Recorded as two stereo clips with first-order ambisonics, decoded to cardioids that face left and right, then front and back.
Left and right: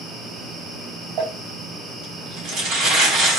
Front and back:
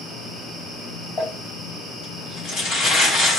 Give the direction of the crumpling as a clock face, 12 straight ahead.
2 o'clock.